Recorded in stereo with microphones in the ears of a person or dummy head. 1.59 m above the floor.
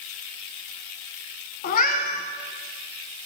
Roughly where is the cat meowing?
Left.